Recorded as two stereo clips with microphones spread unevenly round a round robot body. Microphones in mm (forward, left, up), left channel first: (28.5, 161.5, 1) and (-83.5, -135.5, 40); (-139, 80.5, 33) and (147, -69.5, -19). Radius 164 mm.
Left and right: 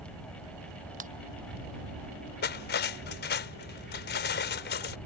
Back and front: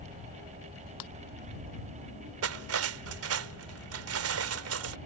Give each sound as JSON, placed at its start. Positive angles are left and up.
{"t": 1.0, "sound": "a ringtone", "azimuth_deg": -175}
{"t": 2.4, "sound": "cutlery clinking", "azimuth_deg": 15}